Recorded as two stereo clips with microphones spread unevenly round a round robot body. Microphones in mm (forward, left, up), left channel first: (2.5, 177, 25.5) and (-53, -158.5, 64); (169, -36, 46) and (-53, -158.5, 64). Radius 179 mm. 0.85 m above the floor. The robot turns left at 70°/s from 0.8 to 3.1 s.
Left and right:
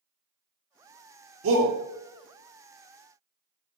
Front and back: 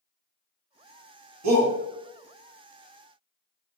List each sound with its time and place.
1.4 s a shout: 150° right, 1.1 m; by 1.7 s 170° right, 1.1 m